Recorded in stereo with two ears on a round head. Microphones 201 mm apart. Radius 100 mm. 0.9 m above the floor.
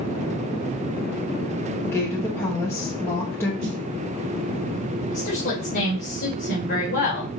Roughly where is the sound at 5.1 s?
Left.